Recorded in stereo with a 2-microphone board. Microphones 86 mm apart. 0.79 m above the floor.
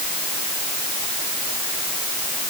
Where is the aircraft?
No aircraft in this recording.